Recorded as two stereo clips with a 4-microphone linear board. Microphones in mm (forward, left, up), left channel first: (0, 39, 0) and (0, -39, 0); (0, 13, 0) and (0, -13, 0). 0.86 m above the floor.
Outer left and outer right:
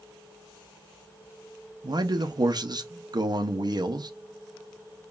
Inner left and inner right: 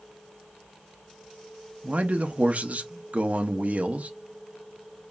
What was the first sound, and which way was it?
A man speaking, 55° right (ahead or behind).